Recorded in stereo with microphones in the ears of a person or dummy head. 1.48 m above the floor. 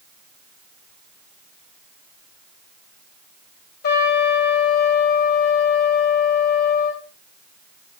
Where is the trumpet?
55° left (ahead or behind), 4 m.